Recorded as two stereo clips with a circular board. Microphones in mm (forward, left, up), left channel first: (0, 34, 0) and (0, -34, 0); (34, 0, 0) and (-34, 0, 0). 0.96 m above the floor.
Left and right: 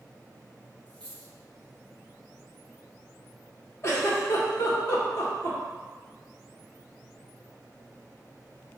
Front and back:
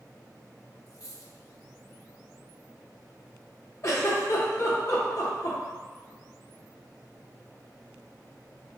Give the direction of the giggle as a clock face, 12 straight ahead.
11 o'clock.